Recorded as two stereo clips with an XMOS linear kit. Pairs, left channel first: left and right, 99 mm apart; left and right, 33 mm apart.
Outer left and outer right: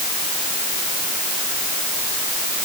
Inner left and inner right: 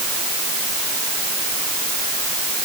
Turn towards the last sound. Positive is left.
No sound to turn to.